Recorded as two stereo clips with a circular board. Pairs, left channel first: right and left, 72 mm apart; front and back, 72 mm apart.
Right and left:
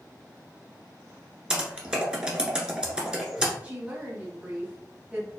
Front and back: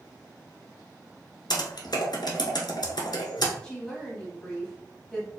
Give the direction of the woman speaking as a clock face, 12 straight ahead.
10 o'clock.